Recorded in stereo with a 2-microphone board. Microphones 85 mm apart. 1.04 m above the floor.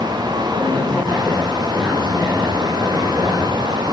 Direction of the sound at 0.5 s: 5° left (ahead or behind).